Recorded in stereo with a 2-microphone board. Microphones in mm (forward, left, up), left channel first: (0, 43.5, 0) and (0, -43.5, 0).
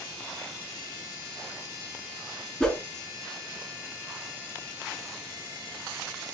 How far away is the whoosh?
About 1.1 m.